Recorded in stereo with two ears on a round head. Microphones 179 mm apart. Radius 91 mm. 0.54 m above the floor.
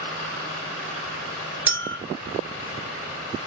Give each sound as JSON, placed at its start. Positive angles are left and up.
{"t": 1.7, "sound": "a clink", "side_deg": -10, "distance_m": 0.8}